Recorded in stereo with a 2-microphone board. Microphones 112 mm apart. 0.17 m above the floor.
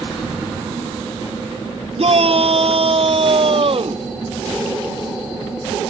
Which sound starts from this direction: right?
A shout, at 2.0 s.